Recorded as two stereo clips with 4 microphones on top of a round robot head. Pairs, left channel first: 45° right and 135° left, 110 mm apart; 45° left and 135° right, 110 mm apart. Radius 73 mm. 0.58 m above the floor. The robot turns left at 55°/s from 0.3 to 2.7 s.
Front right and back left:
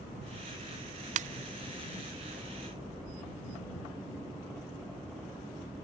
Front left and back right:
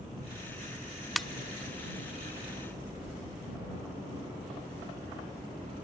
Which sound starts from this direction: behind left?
A ringtone, at 1.2 s.